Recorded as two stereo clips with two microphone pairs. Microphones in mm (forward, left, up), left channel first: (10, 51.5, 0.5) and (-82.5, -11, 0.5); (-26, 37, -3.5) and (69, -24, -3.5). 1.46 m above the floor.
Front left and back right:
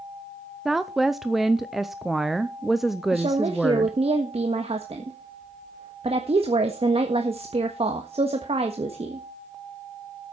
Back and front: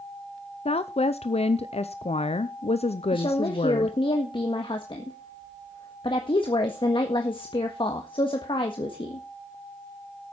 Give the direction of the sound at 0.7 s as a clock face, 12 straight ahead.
8 o'clock.